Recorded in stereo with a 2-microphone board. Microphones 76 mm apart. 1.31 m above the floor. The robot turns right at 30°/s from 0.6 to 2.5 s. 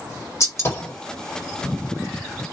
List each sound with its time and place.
0.4 s a gunshot: 40° left (ahead or behind), 1.6 m; by 0.9 s 30° left (ahead or behind), 1.6 m